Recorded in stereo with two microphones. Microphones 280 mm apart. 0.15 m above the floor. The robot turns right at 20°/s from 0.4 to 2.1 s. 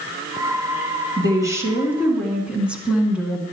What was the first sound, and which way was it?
A woman speaking, 15° right (ahead or behind).